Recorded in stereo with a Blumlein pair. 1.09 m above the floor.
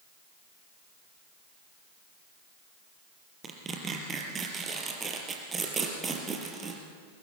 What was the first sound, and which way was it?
Tearing paper, 20° right.